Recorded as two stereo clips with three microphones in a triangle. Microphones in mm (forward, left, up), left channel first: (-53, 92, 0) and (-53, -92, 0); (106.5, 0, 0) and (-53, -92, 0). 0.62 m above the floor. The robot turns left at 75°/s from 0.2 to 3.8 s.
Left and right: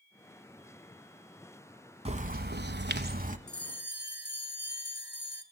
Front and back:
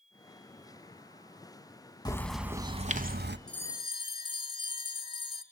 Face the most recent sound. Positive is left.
turn(degrees=90)